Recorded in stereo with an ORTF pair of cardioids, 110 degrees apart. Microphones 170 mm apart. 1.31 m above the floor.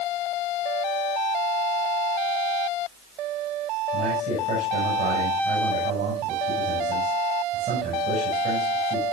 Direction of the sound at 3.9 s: 50° right.